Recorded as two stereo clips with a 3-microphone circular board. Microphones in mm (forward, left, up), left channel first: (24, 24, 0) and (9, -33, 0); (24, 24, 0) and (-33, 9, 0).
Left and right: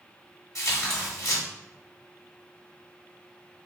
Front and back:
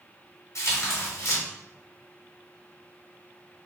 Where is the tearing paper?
45° left, 1.1 m.